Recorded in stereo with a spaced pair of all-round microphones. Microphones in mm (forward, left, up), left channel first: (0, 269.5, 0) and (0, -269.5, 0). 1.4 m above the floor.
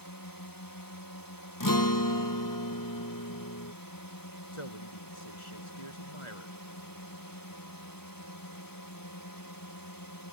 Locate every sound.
0.0 s a drone: 35° left (ahead or behind)
1.6 s a guitar: 35° left (ahead or behind)
4.5 s a man speaking: 65° left (ahead or behind)